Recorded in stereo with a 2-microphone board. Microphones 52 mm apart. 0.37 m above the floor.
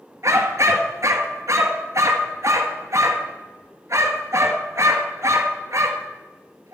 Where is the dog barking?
75° right (ahead or behind), 1.7 m.